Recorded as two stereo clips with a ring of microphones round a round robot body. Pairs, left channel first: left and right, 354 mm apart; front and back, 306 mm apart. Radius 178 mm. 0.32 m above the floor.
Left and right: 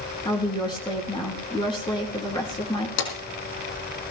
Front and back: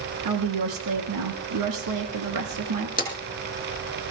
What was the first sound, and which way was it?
A woman speaking, 170° left.